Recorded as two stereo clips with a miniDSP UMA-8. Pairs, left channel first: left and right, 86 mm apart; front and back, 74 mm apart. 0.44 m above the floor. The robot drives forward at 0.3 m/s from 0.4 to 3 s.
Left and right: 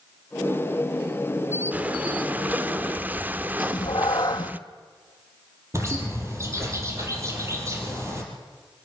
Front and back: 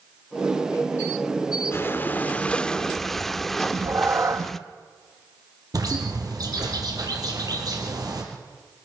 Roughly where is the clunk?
I don't hear a clunk.